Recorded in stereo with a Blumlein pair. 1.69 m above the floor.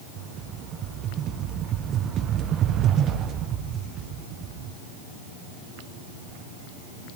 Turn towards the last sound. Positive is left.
turn(degrees=-30)